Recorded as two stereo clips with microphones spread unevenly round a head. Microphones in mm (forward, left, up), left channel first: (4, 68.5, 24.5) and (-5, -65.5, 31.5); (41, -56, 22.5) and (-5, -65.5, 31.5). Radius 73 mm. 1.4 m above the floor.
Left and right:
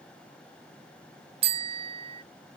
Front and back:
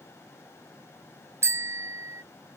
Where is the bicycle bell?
145° right.